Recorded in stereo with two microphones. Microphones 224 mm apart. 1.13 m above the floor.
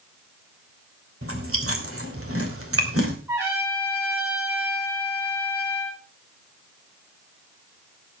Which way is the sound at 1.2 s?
80° right.